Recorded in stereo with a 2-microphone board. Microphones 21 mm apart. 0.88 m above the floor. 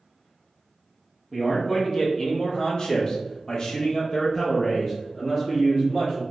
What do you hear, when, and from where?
1.3 s a man speaking: 20° left (ahead or behind), 1.2 m; by 6.2 s 15° left (ahead or behind), 1.8 m